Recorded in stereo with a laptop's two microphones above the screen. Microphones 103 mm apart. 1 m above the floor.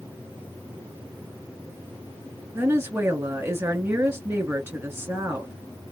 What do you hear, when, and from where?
2.5 s a woman speaking: 20° right (ahead or behind), 2 m